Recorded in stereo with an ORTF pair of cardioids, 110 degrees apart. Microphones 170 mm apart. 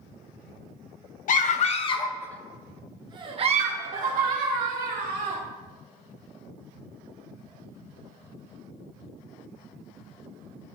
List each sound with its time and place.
1.3 s a scream: 55° left, 0.9 m; by 5.4 s 60° right, 2.0 m